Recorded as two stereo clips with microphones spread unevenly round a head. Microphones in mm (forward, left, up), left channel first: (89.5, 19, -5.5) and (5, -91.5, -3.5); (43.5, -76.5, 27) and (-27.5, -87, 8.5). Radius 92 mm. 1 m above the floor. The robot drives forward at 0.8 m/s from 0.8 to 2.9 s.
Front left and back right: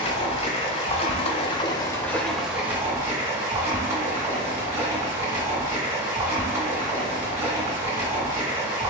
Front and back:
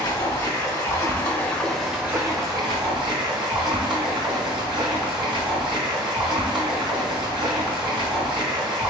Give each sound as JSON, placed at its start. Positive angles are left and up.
{"t": 0.0, "sound": "running water", "azimuth_deg": 15, "distance_m": 1.1}